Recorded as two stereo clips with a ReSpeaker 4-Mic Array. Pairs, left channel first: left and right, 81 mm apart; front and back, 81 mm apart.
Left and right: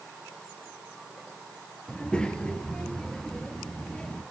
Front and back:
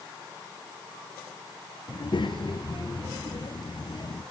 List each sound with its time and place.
1.9 s a child speaking: 10° left, 3 m